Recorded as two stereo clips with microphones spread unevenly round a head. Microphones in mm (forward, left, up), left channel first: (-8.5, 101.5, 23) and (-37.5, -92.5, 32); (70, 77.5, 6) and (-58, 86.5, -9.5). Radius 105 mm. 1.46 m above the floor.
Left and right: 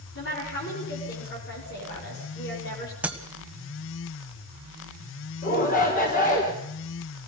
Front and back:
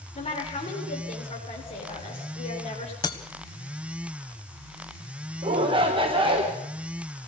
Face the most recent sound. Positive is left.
turn(degrees=130)